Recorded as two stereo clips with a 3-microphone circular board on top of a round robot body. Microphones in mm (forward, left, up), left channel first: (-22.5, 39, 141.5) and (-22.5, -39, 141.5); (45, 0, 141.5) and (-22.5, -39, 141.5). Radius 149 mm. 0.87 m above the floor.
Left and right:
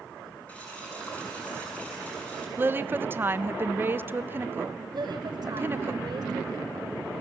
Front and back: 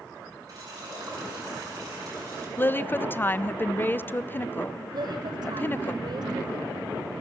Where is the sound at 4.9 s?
130° right, 1.5 m.